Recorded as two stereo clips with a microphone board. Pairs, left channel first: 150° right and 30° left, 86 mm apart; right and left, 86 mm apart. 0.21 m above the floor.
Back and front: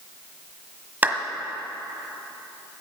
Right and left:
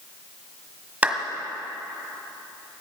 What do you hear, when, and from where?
1.0 s a clap: 50° left, 1.3 m